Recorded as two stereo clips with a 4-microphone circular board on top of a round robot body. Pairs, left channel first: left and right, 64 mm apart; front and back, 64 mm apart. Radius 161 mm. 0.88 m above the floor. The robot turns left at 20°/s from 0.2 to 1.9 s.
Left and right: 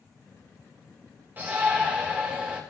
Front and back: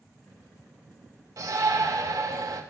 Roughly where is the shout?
Behind right.